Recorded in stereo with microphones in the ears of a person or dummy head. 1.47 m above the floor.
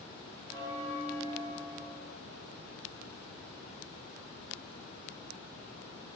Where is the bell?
20° right (ahead or behind), 0.8 m.